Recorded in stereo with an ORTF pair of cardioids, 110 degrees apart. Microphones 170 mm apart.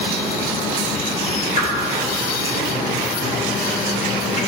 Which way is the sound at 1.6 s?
45° left.